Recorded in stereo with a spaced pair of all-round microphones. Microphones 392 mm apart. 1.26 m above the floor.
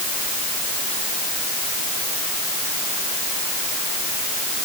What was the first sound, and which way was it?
Only background noise.